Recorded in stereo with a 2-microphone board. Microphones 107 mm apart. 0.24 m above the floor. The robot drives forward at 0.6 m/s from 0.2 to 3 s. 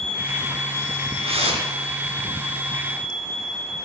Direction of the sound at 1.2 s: 65° right (ahead or behind).